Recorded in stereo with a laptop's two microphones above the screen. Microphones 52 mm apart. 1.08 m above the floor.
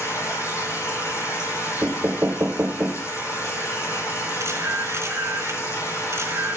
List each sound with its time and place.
0.0 s a machine running: 65° left (ahead or behind), 5 m
1.8 s knocking: 40° right (ahead or behind), 0.9 m
4.4 s a camera shutter: 60° right (ahead or behind), 3 m